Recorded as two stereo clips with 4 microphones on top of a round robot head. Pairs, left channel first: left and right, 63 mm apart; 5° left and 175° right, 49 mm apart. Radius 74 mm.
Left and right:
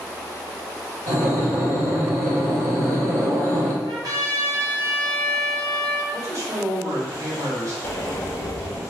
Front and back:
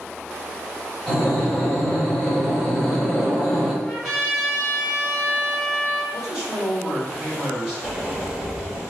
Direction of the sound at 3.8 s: 85° right.